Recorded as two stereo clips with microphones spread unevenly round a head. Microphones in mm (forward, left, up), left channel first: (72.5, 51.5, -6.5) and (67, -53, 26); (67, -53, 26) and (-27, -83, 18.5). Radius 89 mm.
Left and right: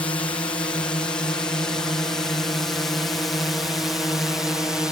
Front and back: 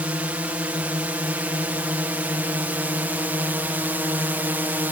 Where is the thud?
I don't hear a thud.